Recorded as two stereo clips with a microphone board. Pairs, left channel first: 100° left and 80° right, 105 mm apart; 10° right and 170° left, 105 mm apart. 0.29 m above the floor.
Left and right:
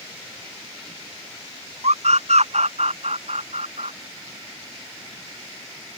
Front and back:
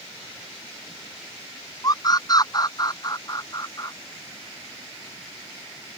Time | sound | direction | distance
1.8 | a scream | 65° right | ?